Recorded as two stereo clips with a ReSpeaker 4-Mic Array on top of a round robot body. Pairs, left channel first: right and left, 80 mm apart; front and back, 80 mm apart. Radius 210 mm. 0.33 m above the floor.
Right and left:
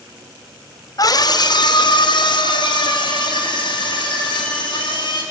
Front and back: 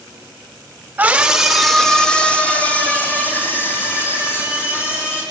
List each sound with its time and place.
1.0 s a scream: 115° right, 2 m; by 5.2 s 60° right, 7.5 m